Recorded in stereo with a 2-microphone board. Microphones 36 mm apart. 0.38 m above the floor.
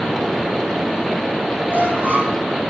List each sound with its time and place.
1.7 s a squeak: 45° right (ahead or behind), 8.5 m